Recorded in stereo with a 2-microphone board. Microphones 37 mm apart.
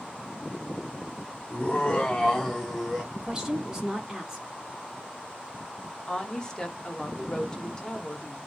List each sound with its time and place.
1.5 s laughter: 30° left (ahead or behind), 0.8 m; by 3.0 s centre (ahead or behind), 1.1 m
3.1 s a woman speaking: 15° right (ahead or behind), 1.0 m
6.1 s a woman speaking: 20° left (ahead or behind), 0.7 m